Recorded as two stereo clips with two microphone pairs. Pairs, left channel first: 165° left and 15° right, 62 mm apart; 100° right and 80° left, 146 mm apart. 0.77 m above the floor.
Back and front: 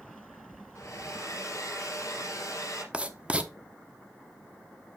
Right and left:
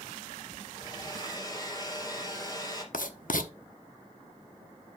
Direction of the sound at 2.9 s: 90° right.